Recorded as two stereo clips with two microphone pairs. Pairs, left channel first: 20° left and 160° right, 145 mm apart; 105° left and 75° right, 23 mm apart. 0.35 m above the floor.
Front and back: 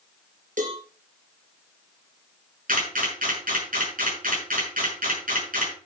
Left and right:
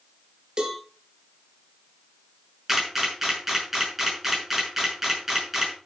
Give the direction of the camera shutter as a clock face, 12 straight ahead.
5 o'clock.